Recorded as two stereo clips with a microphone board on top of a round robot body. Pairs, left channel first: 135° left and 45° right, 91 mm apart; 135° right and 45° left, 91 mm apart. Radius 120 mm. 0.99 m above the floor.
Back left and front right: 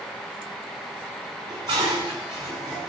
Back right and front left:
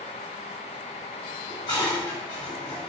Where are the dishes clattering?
85° right, 7.5 m.